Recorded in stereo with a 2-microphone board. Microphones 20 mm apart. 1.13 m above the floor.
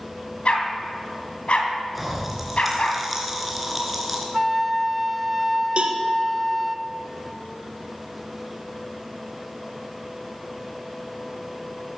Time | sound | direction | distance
0.5 | a dog barking | 55° left (ahead or behind) | 2.5 m
1.9 | a pop | 10° right (ahead or behind) | 3 m
4.3 | a flute | centre (ahead or behind) | 0.7 m
5.8 | a cowbell | 55° right (ahead or behind) | 1.3 m